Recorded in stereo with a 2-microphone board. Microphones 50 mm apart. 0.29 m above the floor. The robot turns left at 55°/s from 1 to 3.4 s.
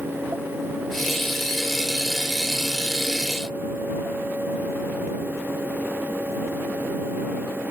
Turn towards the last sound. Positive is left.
No sound to turn to.